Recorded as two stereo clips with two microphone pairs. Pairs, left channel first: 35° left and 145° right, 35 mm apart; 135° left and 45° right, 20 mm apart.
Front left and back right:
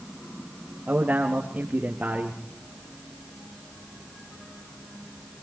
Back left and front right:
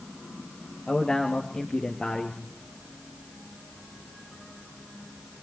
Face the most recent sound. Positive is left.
turn(degrees=180)